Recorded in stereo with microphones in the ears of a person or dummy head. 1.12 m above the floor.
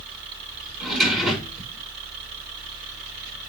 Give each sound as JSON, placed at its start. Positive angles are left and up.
{"t": 0.8, "sound": "a drawer", "side_deg": 0, "distance_m": 5.5}